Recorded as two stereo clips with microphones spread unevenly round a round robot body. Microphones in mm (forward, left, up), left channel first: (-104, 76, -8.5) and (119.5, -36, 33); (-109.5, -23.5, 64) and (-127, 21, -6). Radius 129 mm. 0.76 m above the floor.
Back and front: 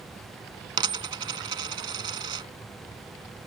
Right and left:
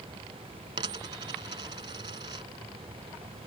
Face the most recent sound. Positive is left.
turn(degrees=40)